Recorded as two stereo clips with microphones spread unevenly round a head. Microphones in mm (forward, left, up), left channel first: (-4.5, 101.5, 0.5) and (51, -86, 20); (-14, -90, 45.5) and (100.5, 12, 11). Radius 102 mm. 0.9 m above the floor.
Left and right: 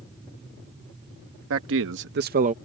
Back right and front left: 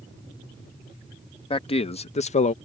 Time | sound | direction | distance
1.5 | a man speaking | 80° right | ?